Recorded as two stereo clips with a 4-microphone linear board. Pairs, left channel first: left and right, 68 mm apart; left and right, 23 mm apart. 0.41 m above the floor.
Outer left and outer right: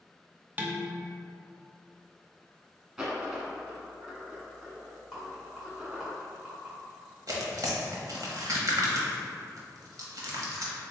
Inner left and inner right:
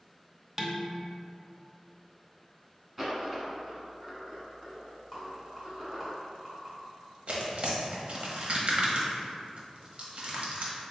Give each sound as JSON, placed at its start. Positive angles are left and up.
{"t": 0.6, "sound": "dishes clattering", "side_deg": -25, "distance_m": 0.5}
{"t": 3.0, "sound": "a dropped coin", "side_deg": -10, "distance_m": 1.1}
{"t": 5.1, "sound": "a rattle", "side_deg": -5, "distance_m": 1.8}
{"t": 7.3, "sound": "tearing paper", "side_deg": -60, "distance_m": 0.7}